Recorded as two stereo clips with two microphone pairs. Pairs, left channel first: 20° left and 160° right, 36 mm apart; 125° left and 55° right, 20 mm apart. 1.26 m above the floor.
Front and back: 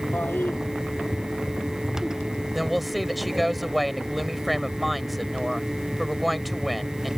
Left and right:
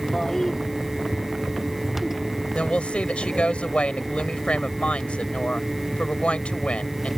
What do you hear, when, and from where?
0.1 s a toilet flushing: 50° left
2.5 s a woman speaking: 110° left